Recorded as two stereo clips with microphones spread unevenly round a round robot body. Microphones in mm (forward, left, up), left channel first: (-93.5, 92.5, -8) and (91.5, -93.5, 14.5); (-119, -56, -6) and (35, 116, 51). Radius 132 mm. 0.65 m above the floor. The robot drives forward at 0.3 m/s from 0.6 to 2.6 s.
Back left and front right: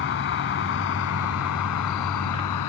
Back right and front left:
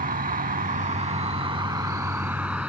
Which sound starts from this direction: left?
An insect, at 0.0 s.